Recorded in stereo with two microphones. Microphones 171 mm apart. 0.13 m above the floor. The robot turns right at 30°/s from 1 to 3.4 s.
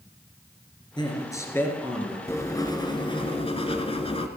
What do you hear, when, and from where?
1.0 s a man speaking: 145° left, 2 m; by 2.2 s straight behind, 2 m
2.3 s writing: 25° left, 1.1 m; by 4.3 s 60° left, 1.1 m